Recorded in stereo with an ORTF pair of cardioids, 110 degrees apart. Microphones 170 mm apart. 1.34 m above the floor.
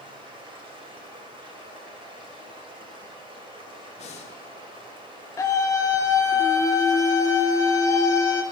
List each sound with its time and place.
0.0 s running water: 35° right, 2.5 m
4.0 s breathing: 45° left, 1.3 m
5.4 s a scream: 20° left, 0.5 m